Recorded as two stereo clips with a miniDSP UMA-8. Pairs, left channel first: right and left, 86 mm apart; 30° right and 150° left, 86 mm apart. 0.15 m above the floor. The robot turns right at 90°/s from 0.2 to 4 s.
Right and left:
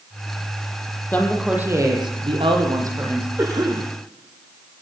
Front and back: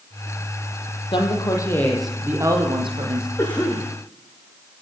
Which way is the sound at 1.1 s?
25° right.